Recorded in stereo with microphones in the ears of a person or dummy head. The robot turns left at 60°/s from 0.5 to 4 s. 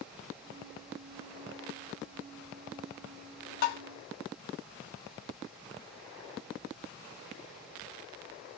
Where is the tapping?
55° left (ahead or behind), 0.7 m; by 3.8 s 65° left (ahead or behind), 0.7 m.